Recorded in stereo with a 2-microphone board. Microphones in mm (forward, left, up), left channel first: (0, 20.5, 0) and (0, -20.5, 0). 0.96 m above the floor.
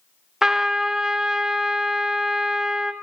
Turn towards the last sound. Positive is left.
turn(degrees=-15)  # may be behind; listen again after turning